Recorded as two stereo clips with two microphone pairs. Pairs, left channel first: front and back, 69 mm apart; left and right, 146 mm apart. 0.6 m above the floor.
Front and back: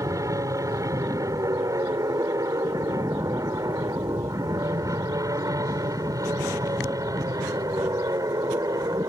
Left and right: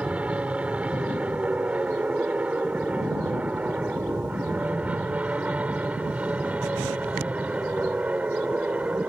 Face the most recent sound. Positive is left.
turn(degrees=-170)